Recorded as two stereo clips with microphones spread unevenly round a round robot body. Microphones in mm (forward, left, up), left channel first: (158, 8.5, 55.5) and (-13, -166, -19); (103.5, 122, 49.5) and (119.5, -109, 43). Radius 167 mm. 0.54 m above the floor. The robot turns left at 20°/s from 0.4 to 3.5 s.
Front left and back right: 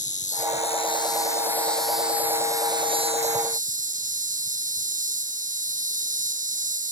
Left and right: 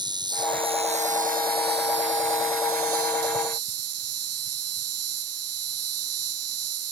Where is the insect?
15° right; by 6.9 s 75° right.